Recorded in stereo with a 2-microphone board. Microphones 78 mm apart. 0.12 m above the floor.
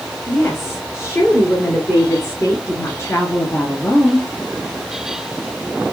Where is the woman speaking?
30° left (ahead or behind), 2.5 m.